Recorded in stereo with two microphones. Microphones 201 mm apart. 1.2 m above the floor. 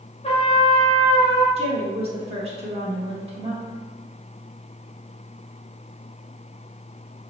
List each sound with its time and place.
0.2 s a trumpet: 30° left (ahead or behind), 0.8 m
1.6 s a woman speaking: 30° right (ahead or behind), 1.1 m